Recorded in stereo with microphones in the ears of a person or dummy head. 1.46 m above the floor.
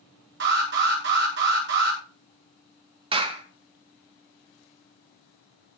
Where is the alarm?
55° right (ahead or behind), 8.5 m.